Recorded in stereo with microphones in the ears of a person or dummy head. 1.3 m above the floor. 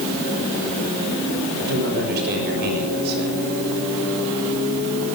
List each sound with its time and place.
1.6 s a man speaking: 60° right (ahead or behind), 6.5 m